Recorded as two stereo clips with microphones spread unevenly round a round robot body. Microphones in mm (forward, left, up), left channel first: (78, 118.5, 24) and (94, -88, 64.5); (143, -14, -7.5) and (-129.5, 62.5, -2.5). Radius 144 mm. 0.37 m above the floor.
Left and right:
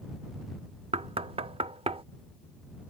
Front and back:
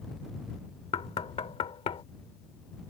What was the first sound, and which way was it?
Knocking, 40° right.